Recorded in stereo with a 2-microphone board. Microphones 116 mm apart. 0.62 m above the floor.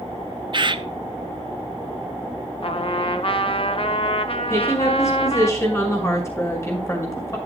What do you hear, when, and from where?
0.5 s a bird: 45° right (ahead or behind), 0.5 m
2.6 s a trumpet: 50° left (ahead or behind), 0.8 m
4.5 s a woman speaking: 25° left (ahead or behind), 5.5 m